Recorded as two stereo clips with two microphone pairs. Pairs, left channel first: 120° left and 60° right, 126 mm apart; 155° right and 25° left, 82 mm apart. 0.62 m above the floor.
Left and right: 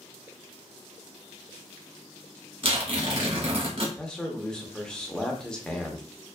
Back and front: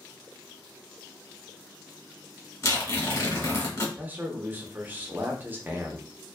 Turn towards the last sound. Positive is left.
turn(degrees=40)